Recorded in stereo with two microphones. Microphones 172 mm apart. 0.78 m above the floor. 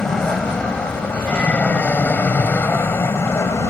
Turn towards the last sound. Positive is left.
turn(degrees=15)  # may be behind; listen again after turning